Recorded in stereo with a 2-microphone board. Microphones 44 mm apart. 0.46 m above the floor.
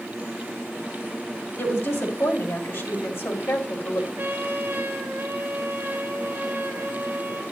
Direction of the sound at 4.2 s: 50° right (ahead or behind).